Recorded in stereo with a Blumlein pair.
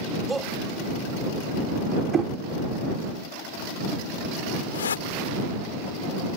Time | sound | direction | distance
0.3 | a shout | 10° right | ?
2.1 | knocking | 20° right | ?
4.7 | a whoosh | 65° left | ?